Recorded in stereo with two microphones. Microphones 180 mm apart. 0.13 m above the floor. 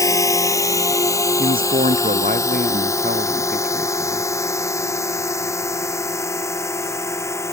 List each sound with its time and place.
0.0 s a drone: 15° left (ahead or behind)
1.4 s a man speaking: 50° right (ahead or behind)